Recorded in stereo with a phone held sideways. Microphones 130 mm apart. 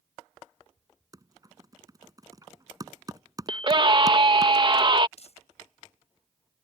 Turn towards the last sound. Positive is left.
turn(degrees=55)  # may be behind; listen again after turning